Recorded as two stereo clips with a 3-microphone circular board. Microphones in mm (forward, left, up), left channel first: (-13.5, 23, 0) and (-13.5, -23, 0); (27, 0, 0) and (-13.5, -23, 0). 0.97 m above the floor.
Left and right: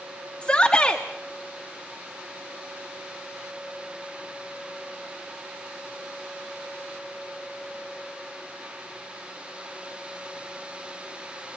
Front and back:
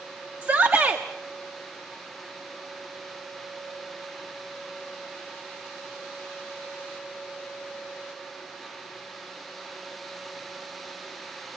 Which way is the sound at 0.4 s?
155° left.